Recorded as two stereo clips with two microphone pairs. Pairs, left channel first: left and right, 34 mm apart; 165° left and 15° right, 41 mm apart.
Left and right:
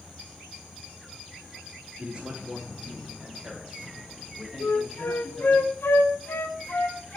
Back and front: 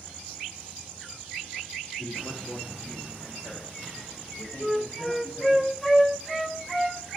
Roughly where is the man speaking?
Behind right.